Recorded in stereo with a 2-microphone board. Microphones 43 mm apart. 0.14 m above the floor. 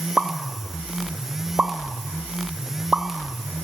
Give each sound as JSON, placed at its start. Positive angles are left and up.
{"t": 0.2, "sound": "a pop", "side_deg": -25, "distance_m": 0.6}